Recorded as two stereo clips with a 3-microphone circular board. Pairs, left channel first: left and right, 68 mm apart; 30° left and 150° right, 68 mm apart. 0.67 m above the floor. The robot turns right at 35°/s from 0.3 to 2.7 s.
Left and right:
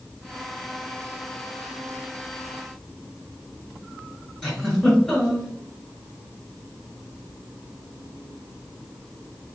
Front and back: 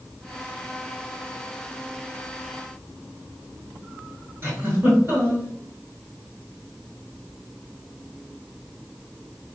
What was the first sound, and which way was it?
A giggle, 175° left.